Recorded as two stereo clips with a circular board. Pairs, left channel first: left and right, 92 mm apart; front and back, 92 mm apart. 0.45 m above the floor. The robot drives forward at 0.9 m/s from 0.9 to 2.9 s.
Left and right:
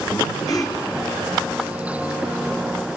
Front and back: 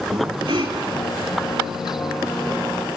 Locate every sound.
0.1 s breathing: 140° left, 3.5 m